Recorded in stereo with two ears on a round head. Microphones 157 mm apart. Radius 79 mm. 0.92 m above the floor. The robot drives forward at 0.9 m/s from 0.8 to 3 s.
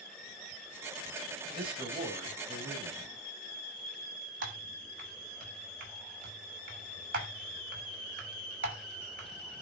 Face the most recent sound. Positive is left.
turn(degrees=-55)  # may be behind; listen again after turning